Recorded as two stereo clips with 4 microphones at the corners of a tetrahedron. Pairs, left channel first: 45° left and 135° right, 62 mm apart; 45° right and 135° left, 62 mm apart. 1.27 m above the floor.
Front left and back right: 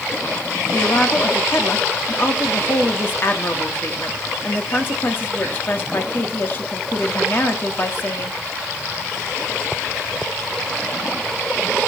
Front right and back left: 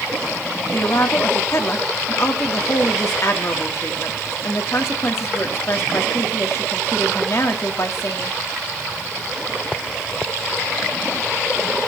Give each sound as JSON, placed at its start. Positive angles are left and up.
{"t": 0.7, "sound": "a woman speaking", "azimuth_deg": -5, "distance_m": 3.0}